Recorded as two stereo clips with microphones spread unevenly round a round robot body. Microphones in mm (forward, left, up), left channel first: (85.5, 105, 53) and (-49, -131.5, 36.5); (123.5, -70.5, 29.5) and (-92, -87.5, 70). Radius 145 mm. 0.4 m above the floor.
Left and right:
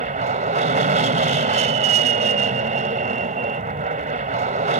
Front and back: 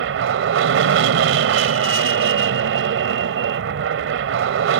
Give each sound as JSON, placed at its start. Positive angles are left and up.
{"t": 0.0, "sound": "an aircraft", "azimuth_deg": -175}